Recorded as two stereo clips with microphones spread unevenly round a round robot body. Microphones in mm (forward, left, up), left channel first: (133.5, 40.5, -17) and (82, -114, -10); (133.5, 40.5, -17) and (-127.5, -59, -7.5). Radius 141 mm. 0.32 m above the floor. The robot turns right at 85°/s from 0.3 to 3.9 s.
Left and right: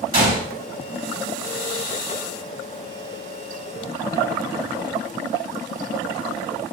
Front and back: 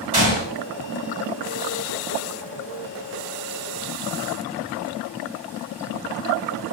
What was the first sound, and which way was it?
A gunshot, 95° right.